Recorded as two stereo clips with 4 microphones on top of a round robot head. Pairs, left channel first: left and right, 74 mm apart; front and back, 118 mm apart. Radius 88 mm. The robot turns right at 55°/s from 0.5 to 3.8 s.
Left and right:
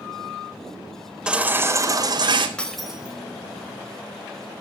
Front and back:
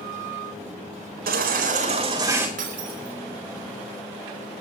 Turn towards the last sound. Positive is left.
turn(degrees=-125)